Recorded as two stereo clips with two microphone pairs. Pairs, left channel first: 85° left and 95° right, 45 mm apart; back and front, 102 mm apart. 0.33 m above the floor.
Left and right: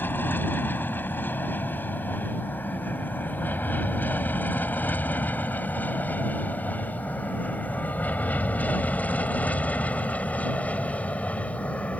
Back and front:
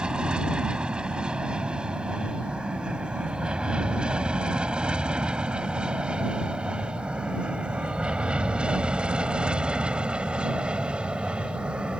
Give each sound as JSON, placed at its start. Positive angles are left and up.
{"t": 0.0, "sound": "an aircraft", "azimuth_deg": 75}